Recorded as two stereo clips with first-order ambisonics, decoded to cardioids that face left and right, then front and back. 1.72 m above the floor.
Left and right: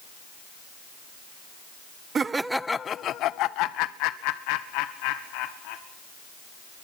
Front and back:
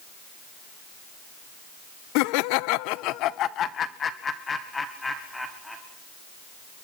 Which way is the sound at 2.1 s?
20° right.